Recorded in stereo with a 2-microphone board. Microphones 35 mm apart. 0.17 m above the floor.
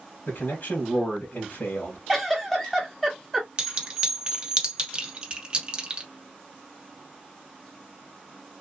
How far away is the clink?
About 1.5 m.